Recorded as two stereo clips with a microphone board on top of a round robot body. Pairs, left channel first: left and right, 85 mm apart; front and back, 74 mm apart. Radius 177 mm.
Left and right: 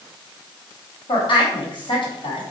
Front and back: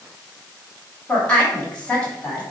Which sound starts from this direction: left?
A woman speaking, at 1.1 s.